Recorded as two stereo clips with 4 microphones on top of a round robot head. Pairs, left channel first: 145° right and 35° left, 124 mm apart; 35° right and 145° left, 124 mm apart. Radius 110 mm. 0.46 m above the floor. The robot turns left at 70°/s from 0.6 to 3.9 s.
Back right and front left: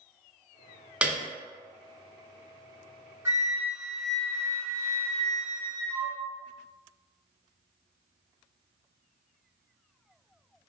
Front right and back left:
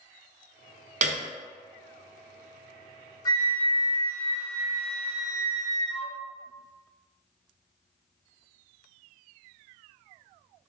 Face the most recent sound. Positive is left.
turn(degrees=-60)